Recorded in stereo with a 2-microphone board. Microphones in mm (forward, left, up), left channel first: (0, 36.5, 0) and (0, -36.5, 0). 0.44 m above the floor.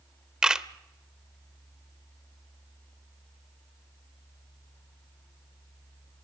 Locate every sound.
0.4 s a camera shutter: 10° right (ahead or behind), 0.9 m